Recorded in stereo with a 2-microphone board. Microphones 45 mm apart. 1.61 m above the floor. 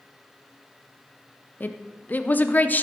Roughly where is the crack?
I don't hear a crack.